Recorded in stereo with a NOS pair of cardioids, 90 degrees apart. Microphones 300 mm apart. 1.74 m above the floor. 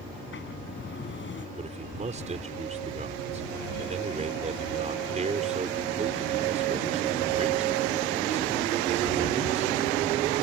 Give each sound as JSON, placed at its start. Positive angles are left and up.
{"t": 0.1, "sound": "a sliding door", "azimuth_deg": 40}
{"t": 1.6, "sound": "a man speaking", "azimuth_deg": -25}